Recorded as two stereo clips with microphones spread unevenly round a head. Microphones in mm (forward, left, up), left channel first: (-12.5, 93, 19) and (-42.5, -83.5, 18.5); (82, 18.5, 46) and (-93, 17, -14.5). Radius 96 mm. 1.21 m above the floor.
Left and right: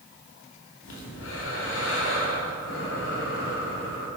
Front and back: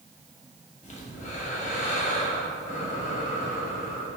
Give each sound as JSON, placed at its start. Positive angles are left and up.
{"t": 0.8, "sound": "breathing", "azimuth_deg": 50, "distance_m": 2.5}